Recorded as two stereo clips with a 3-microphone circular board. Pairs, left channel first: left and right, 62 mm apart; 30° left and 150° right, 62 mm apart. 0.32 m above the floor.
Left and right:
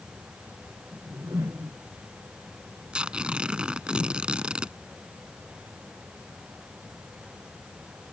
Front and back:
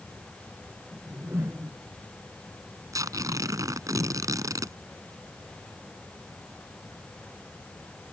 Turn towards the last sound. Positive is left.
turn(degrees=-165)